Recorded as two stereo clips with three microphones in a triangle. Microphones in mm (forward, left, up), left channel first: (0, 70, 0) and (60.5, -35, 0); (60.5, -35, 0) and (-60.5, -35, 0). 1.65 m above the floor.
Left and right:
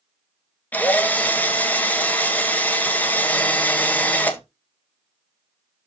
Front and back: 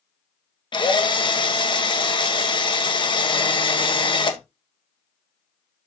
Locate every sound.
0.7 s a drill: 45° left, 1.4 m